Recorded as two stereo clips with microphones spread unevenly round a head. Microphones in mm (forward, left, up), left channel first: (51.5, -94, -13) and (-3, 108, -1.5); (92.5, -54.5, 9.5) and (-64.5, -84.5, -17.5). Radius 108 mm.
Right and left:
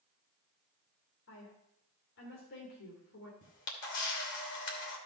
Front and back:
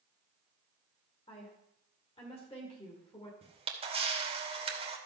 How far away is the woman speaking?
About 2.5 m.